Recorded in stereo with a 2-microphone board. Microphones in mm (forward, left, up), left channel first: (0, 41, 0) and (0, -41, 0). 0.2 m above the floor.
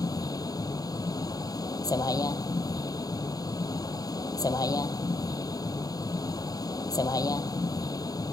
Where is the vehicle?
50° left (ahead or behind).